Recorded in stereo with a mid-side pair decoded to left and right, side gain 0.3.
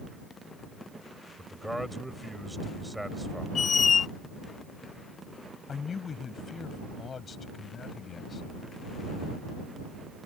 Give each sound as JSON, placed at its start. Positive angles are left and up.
{"t": 1.4, "sound": "a man speaking", "azimuth_deg": -5}
{"t": 3.5, "sound": "a squeak", "azimuth_deg": 65}
{"t": 5.7, "sound": "a man speaking", "azimuth_deg": 65}